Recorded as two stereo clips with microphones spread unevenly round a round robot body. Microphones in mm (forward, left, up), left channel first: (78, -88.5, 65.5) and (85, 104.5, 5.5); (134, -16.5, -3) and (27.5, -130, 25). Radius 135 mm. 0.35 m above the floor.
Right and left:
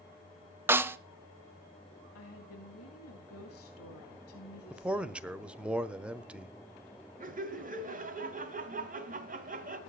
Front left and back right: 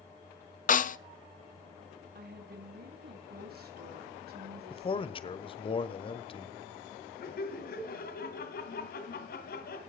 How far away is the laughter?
About 2.5 m.